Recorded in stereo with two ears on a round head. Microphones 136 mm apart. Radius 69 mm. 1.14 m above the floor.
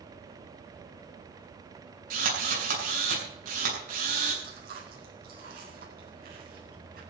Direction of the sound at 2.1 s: 60° right (ahead or behind).